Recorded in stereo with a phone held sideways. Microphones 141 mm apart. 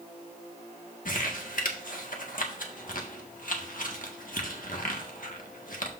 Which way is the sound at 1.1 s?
75° left (ahead or behind).